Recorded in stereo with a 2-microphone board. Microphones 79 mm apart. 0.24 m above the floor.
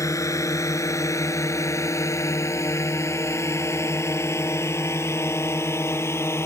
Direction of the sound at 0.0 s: 40° left (ahead or behind).